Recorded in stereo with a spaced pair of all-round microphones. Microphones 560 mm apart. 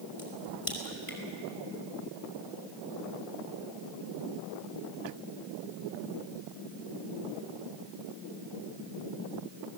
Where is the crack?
65° left (ahead or behind), 5 m.